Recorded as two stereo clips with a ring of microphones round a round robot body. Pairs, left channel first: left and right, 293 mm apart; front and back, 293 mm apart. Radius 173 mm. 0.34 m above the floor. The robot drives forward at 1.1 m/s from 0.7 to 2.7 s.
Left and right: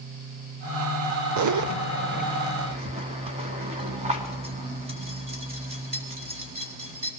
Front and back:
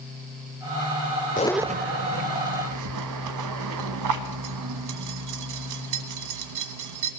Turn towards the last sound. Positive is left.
turn(degrees=-160)